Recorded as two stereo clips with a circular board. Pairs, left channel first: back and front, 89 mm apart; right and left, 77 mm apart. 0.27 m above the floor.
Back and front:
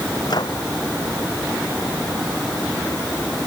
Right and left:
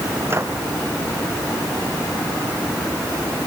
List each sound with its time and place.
0.3 s a microwave: 145° left